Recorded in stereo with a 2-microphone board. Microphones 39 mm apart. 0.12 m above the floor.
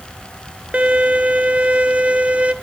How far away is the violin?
About 0.9 m.